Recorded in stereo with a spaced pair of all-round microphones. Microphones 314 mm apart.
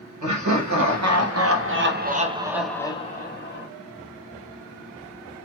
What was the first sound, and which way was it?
Laughter, 65° right (ahead or behind).